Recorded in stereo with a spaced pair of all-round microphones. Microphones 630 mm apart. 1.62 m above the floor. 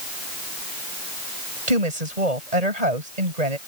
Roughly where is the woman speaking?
Right.